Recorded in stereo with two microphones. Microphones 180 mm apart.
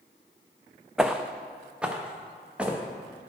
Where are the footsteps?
5° right (ahead or behind), 0.6 m.